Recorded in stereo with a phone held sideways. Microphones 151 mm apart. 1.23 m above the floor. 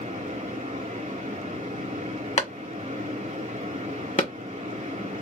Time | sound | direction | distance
0.0 | a fan | 55° right (ahead or behind) | 1.8 m
2.4 | a clap | 45° left (ahead or behind) | 1.0 m